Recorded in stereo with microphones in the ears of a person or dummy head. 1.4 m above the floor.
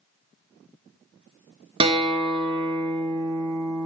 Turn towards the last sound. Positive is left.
turn(degrees=-30)  # may be behind; listen again after turning